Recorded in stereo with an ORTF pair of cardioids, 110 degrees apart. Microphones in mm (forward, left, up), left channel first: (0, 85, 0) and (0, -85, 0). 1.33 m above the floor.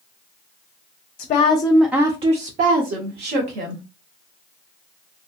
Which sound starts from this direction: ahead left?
A woman speaking, at 1.2 s.